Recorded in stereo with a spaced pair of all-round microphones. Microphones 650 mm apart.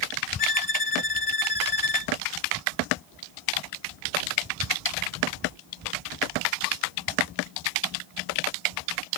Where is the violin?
50° left (ahead or behind).